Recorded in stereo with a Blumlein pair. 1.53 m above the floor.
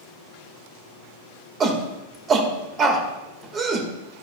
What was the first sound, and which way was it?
A shout, 25° right.